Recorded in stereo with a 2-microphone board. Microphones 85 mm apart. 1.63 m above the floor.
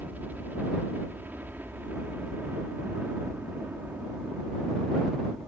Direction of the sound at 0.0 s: 20° right (ahead or behind).